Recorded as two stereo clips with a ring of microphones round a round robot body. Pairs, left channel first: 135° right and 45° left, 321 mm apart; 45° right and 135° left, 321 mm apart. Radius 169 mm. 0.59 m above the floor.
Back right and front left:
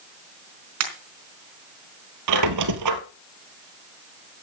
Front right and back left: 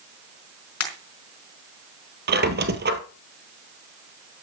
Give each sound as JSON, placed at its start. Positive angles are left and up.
{"t": 0.8, "sound": "a pop", "azimuth_deg": 0, "distance_m": 4.0}
{"t": 2.3, "sound": "a squeak", "azimuth_deg": 75, "distance_m": 1.5}